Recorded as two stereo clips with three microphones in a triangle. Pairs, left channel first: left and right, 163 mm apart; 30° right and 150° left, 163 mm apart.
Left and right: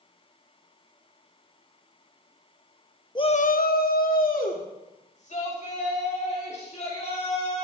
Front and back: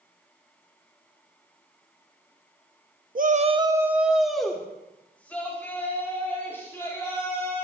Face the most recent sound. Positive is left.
turn(degrees=45)